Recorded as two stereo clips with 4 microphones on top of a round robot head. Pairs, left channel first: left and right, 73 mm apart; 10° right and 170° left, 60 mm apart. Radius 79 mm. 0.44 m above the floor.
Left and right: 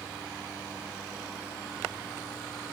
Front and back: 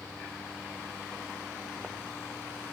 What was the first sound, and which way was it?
Only background noise.